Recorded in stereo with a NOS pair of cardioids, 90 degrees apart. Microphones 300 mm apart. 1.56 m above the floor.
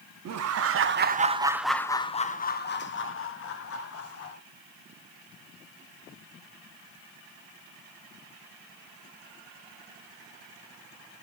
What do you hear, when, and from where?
0.2 s laughter: 60° right, 0.9 m; by 4.4 s 55° left, 1.8 m